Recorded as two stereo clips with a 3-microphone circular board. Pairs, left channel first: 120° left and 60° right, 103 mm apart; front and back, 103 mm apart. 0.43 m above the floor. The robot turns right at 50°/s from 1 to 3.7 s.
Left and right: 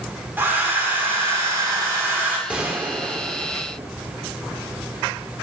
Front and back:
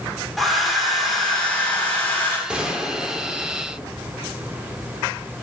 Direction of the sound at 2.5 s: 120° right.